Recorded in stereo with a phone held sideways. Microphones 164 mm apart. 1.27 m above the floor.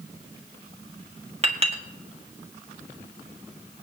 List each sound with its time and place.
1.4 s a clink: 40° right (ahead or behind), 1.7 m